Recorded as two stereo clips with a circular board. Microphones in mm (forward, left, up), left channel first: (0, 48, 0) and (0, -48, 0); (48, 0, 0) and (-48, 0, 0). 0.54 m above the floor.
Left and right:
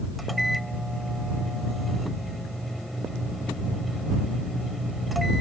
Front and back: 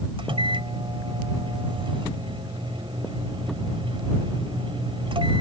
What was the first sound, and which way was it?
A microwave, straight behind.